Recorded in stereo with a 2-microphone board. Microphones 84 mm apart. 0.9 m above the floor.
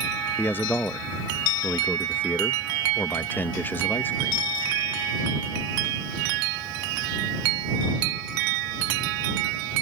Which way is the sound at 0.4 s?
25° left (ahead or behind).